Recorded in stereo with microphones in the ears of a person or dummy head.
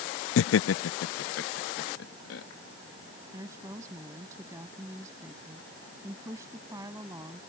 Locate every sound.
0.4 s laughter: 80° left; by 2.4 s 70° left (ahead or behind)
3.3 s a woman speaking: 15° right (ahead or behind)